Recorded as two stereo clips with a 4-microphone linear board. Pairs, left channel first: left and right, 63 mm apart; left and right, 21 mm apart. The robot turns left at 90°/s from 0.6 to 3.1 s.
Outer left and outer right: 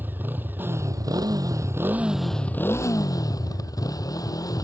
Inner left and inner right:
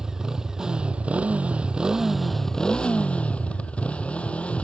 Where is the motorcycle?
30° right; by 4.7 s 105° left.